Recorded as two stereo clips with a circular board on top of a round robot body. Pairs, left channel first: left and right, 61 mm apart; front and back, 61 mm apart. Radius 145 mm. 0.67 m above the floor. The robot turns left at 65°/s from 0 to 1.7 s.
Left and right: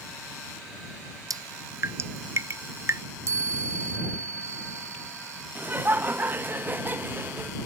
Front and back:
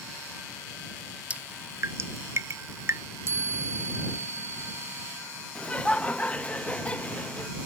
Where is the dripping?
110° right; by 3.0 s 135° right.